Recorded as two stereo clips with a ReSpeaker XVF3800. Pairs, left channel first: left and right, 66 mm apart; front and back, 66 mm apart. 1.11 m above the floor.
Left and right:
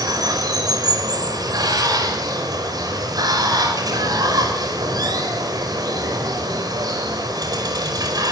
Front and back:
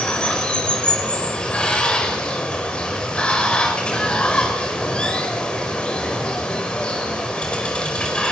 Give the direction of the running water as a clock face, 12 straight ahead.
3 o'clock.